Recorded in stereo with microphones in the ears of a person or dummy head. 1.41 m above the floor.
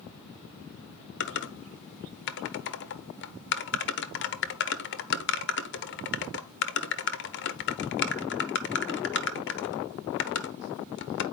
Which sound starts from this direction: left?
Typing on a keyboard, at 1.2 s.